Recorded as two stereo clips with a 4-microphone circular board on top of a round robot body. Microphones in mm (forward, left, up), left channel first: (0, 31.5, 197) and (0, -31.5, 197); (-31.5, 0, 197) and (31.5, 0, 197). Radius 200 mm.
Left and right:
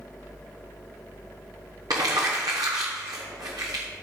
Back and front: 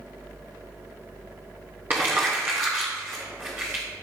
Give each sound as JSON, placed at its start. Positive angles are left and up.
{"t": 1.9, "sound": "crumpling", "azimuth_deg": -65, "distance_m": 0.8}